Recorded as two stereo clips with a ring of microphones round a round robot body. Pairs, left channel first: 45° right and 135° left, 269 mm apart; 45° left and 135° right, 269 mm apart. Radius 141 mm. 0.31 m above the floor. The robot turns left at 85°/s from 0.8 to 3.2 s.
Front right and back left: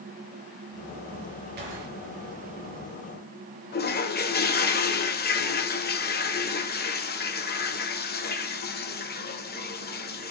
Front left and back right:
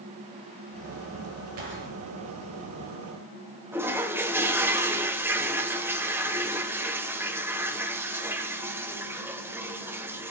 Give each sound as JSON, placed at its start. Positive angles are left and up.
{"t": 1.6, "sound": "a gunshot", "azimuth_deg": -170, "distance_m": 4.0}
{"t": 3.7, "sound": "a toilet flushing", "azimuth_deg": -60, "distance_m": 1.3}